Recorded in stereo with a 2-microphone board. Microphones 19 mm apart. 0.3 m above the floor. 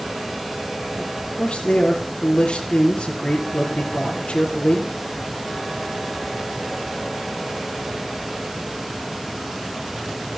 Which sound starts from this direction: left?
A man speaking, at 1.0 s.